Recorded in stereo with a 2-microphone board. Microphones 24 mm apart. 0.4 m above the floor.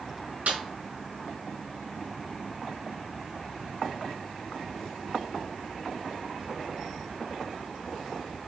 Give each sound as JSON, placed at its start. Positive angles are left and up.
{"t": 0.5, "sound": "a snare drum", "side_deg": -75, "distance_m": 3.0}